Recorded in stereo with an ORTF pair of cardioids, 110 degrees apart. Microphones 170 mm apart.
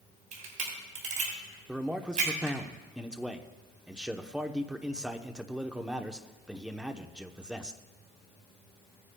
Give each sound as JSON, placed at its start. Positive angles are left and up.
{"t": 0.3, "sound": "a camera shutter", "azimuth_deg": -50, "distance_m": 4.0}
{"t": 1.7, "sound": "a man speaking", "azimuth_deg": -5, "distance_m": 0.8}